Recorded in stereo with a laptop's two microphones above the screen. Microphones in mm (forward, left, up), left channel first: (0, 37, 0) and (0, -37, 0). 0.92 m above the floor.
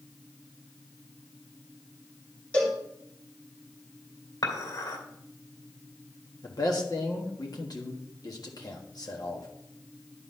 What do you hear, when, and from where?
2.5 s a cowbell: 15° left (ahead or behind), 1.8 m
4.4 s dishes clattering: 70° left (ahead or behind), 2.5 m
6.4 s a man speaking: 55° left (ahead or behind), 1.5 m